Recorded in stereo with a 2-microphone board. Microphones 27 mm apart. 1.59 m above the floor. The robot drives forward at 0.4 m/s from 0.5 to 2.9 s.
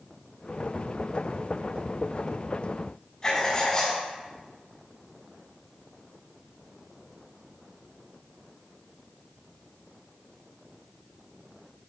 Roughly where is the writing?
Left.